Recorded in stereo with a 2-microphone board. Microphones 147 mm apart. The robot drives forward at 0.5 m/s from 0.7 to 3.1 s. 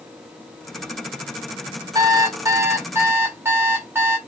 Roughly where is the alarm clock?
Right.